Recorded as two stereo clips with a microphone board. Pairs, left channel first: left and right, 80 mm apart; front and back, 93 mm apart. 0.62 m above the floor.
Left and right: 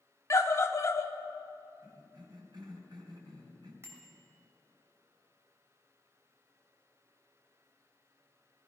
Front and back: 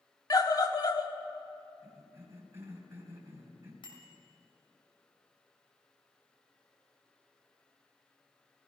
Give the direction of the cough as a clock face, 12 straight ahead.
4 o'clock.